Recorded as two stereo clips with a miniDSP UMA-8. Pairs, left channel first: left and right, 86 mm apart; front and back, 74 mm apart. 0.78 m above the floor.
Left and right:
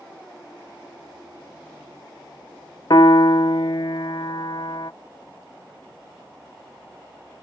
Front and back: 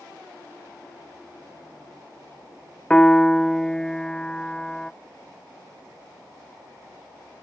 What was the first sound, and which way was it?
A piano, 80° left.